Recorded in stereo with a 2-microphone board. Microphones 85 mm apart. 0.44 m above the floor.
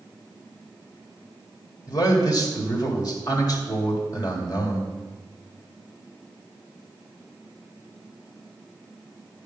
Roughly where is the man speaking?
Left.